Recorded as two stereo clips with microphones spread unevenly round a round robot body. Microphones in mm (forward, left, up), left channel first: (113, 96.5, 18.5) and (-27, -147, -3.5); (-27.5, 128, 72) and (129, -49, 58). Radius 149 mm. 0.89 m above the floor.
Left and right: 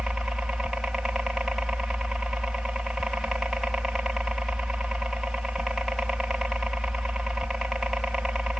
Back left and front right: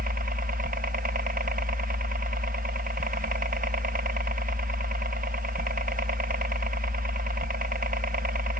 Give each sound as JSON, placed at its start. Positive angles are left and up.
{"t": 0.0, "sound": "a helicopter", "azimuth_deg": -35}